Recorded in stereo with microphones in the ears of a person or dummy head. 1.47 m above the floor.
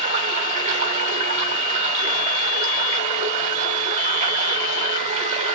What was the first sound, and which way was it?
Running water, 35° right (ahead or behind).